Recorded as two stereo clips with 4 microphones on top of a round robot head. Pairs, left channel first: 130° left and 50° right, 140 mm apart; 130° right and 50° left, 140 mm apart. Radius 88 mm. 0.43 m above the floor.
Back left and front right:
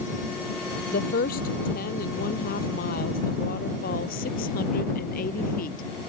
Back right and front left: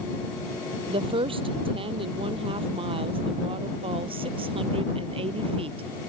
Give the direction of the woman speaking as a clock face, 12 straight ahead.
8 o'clock.